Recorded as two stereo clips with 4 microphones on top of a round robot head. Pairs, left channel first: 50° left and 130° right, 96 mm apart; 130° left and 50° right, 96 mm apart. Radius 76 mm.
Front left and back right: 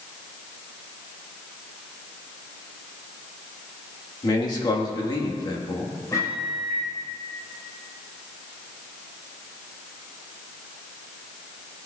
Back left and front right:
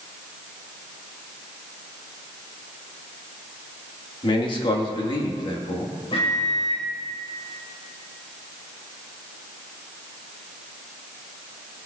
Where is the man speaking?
95° left, 1.5 m.